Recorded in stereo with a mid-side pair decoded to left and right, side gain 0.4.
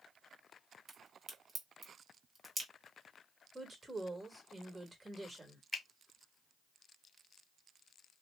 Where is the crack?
40° right, 1.2 m.